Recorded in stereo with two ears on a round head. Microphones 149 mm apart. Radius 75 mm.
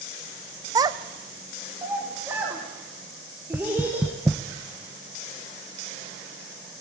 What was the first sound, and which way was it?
A child speaking, 20° right (ahead or behind).